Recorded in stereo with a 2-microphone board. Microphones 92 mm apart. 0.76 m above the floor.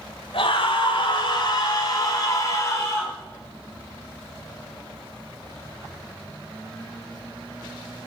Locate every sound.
0.3 s a scream: 70° left (ahead or behind), 2.5 m; by 3.1 s 30° left (ahead or behind), 4 m